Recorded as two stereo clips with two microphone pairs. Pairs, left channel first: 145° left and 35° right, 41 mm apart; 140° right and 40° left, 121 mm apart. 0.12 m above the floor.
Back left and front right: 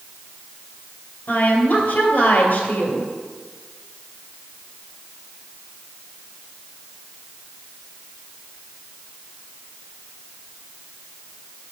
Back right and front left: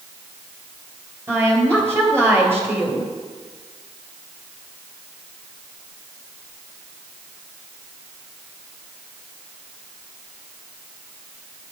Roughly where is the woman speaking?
Left.